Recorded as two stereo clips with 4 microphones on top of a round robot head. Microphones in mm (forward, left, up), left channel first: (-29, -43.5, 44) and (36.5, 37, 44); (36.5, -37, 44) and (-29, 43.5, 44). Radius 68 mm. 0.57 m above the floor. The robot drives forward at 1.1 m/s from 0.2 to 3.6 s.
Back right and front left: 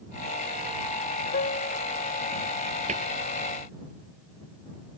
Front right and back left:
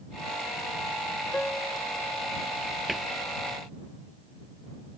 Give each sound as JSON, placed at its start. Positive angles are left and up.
{"t": 1.3, "sound": "a piano", "azimuth_deg": -130}
{"t": 2.9, "sound": "a cupboard door", "azimuth_deg": 40}